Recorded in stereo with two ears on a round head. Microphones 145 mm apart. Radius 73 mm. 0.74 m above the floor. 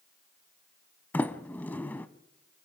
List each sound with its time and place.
1.1 s a sliding door: 10° left (ahead or behind), 0.9 m